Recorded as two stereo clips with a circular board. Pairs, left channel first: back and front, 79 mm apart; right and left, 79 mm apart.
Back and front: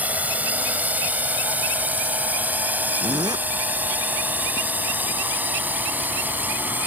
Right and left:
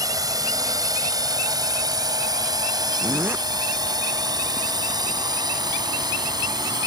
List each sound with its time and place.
0.0 s a drone: 65° left
3.0 s a zipper: 25° left